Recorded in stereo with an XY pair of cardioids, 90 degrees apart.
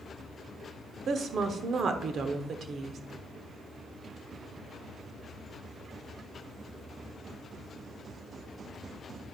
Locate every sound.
1.1 s a woman speaking: 60° right, 0.9 m